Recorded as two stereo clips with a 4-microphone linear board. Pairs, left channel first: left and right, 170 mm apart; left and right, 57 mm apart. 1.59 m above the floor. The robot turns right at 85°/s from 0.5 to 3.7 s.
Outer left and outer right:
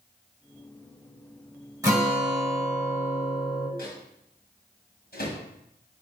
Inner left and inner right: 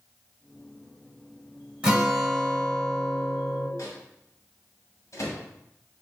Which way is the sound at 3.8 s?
60° left (ahead or behind).